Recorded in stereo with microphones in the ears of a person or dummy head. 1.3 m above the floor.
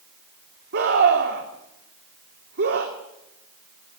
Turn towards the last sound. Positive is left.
turn(degrees=-55)  # may be behind; listen again after turning